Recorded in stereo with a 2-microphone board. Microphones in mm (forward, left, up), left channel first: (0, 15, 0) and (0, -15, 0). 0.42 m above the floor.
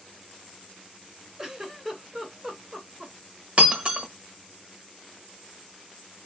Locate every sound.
1.4 s a giggle: 5° right (ahead or behind), 1.4 m
3.6 s breaking glass: 35° right (ahead or behind), 1.0 m